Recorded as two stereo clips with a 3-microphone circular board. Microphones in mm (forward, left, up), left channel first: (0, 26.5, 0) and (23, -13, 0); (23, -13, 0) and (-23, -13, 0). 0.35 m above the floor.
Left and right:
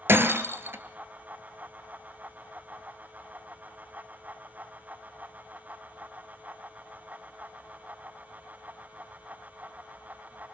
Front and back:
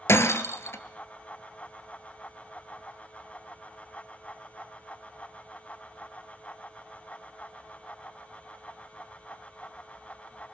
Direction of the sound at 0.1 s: 25° right.